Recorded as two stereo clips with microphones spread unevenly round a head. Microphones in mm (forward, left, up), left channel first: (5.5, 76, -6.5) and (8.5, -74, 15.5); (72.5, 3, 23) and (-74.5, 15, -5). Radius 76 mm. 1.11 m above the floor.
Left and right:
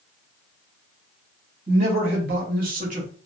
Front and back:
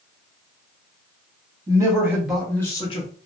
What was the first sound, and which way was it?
A man speaking, 125° right.